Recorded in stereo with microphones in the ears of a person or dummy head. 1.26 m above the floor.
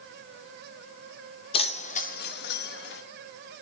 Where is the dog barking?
I don't hear a dog barking.